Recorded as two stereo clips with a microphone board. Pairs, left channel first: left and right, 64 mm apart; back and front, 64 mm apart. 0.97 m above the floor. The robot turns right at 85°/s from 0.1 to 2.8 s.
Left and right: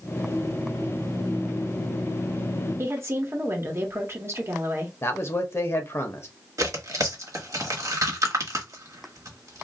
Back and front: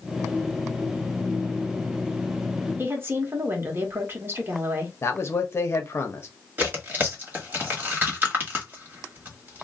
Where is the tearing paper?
60° right, 1.2 m.